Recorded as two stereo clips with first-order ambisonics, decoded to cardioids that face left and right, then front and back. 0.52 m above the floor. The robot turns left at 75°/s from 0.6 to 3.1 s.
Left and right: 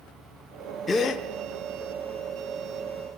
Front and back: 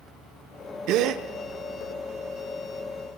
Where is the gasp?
165° left, 0.8 m; by 1.2 s 140° left, 0.8 m.